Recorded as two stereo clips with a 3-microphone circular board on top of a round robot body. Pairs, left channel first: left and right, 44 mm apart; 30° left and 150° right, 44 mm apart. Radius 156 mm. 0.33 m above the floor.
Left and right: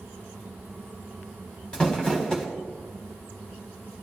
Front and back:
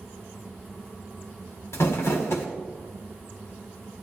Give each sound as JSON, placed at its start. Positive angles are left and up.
{"t": 1.7, "sound": "crumpling", "azimuth_deg": 20, "distance_m": 1.5}